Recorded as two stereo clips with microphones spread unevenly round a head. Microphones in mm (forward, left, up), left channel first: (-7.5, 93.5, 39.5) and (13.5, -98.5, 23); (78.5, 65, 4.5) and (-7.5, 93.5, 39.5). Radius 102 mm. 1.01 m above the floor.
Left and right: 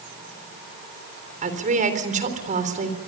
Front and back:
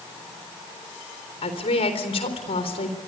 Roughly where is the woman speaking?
Ahead right.